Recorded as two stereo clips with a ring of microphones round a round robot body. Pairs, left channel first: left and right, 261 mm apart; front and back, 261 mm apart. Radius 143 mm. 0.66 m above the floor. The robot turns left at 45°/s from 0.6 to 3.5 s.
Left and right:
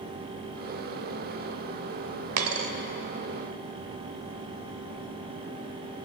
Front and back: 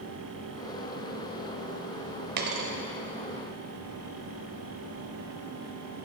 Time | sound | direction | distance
2.4 | a dropped coin | 120° right | 0.7 m